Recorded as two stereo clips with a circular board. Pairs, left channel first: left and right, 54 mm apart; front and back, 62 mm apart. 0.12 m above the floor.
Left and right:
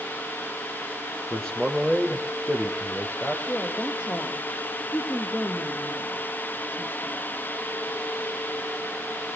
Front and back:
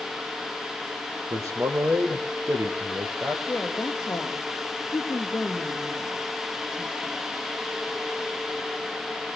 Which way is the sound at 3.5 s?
55° left.